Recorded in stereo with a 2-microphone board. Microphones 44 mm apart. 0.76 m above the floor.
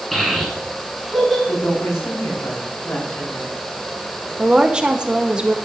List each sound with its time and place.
0.1 s a child speaking: 5° left (ahead or behind), 5 m
1.5 s a woman speaking: 85° left, 6 m
4.4 s a woman speaking: 20° right (ahead or behind), 1.1 m